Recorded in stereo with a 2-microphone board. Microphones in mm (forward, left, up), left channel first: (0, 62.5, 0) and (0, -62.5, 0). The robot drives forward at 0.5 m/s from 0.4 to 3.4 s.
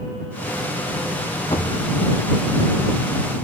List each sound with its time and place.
1.5 s a cupboard door: 45° left (ahead or behind), 3.5 m; by 1.9 s 40° left (ahead or behind), 3.5 m